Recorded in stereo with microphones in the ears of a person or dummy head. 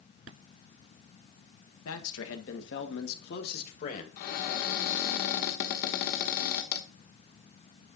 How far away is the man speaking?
About 1.6 m.